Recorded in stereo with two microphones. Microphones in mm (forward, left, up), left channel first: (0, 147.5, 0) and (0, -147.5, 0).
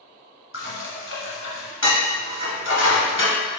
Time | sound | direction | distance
0.5 | dishes clattering | 40° left (ahead or behind) | 0.9 m